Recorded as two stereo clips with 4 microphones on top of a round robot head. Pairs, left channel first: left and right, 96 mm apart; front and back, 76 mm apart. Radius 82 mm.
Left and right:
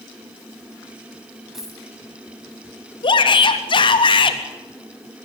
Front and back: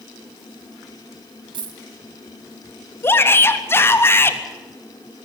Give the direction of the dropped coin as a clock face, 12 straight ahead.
6 o'clock.